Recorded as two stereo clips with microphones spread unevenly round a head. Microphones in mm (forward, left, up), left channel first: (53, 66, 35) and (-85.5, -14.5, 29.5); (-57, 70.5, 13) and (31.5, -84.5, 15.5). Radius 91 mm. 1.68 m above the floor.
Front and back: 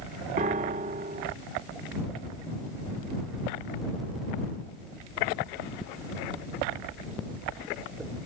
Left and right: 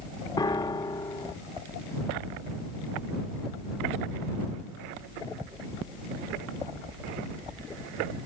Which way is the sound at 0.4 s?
Straight behind.